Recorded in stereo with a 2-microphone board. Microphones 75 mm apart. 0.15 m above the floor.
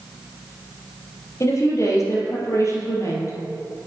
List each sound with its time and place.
1.4 s a woman speaking: 40° left (ahead or behind), 3 m